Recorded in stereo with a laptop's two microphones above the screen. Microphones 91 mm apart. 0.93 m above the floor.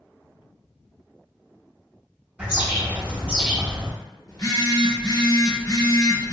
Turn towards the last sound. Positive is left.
turn(degrees=50)  # may be behind; listen again after turning